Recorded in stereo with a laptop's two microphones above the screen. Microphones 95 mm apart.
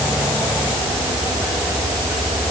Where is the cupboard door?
No cupboard door in this recording.